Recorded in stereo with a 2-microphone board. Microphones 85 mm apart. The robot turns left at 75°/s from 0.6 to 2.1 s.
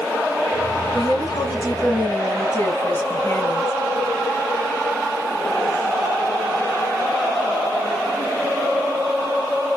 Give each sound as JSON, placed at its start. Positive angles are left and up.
{"t": 0.9, "sound": "a woman speaking", "azimuth_deg": 125, "distance_m": 2.0}